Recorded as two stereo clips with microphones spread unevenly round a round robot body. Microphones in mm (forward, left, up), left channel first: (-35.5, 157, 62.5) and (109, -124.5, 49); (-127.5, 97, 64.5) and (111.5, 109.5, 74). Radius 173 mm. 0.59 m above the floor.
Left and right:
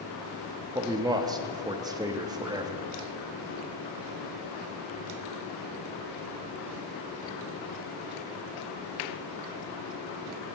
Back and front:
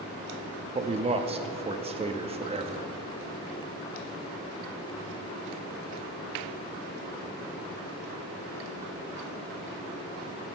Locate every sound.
0.8 s a man speaking: 15° right, 0.6 m